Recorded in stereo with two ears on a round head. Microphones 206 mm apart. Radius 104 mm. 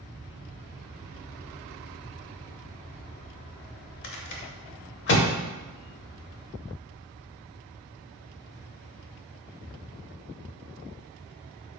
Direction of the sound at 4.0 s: 50° left (ahead or behind).